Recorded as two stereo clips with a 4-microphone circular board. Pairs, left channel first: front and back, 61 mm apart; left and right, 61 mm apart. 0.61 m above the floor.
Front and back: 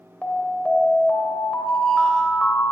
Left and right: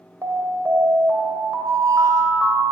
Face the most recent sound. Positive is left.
turn(degrees=-75)